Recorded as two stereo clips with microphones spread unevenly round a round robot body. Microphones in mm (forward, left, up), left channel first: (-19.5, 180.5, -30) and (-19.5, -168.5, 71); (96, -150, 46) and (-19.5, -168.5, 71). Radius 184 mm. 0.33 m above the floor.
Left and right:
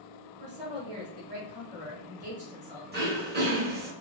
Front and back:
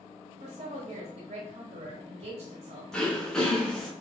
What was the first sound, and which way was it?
A woman speaking, 170° right.